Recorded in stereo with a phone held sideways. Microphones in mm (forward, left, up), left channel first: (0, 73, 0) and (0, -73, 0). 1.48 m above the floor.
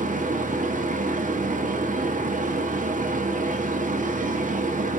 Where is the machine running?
60° right (ahead or behind), 0.8 m.